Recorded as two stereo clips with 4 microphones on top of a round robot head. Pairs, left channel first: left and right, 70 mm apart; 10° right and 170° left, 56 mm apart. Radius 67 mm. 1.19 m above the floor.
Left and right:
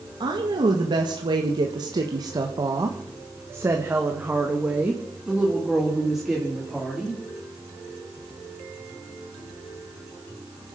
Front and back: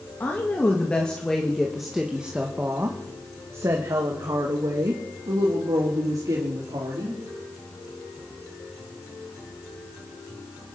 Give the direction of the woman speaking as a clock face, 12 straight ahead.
2 o'clock.